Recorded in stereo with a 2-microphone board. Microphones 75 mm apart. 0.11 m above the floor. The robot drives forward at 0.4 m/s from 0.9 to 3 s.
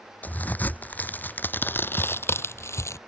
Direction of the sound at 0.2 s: 25° left (ahead or behind).